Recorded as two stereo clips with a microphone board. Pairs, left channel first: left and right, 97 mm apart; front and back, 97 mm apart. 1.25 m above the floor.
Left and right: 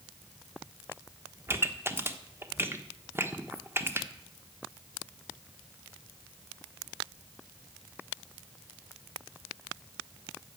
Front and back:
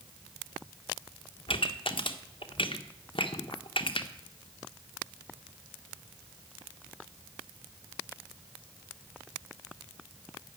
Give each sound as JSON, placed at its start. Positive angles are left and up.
{"t": 1.5, "sound": "a pop", "azimuth_deg": -25, "distance_m": 1.1}